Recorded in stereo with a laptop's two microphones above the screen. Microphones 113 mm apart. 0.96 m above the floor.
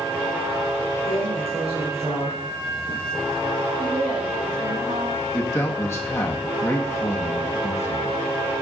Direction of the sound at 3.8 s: 70° right (ahead or behind).